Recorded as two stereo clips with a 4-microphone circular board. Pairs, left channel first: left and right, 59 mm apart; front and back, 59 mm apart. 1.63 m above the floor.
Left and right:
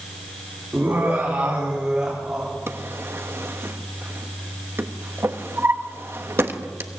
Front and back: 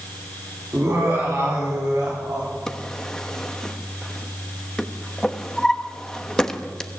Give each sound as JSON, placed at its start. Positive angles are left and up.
{"t": 0.7, "sound": "laughter", "azimuth_deg": -145, "distance_m": 3.5}
{"t": 2.7, "sound": "a drawer", "azimuth_deg": -80, "distance_m": 1.2}